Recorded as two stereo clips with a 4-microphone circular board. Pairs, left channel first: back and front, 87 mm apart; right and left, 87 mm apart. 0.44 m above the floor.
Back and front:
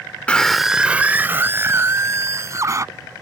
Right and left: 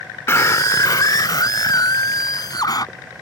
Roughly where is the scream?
Behind right.